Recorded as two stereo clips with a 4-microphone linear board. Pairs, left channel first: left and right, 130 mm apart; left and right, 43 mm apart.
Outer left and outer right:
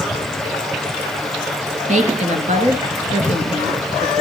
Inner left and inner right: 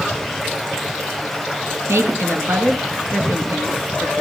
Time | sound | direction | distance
1.9 | a woman speaking | 70° right (ahead or behind) | 3 m